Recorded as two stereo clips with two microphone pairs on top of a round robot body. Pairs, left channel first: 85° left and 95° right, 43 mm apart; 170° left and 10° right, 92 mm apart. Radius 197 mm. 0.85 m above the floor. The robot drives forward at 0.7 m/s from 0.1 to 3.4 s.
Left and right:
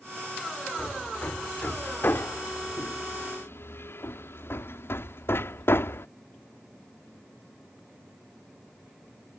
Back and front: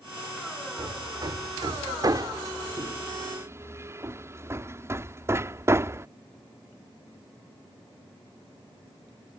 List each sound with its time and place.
0.8 s hammering: 30° left; by 6.1 s 50° left